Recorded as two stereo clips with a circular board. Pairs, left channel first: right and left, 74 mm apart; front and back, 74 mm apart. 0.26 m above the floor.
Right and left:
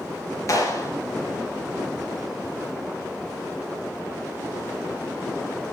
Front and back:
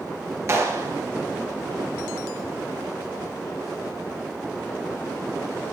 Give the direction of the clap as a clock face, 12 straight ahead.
4 o'clock.